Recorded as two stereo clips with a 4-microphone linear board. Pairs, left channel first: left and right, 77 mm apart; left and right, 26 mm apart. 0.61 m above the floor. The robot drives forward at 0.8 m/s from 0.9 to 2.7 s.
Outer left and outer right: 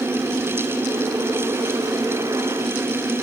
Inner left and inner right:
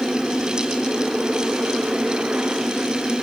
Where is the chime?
I don't hear a chime.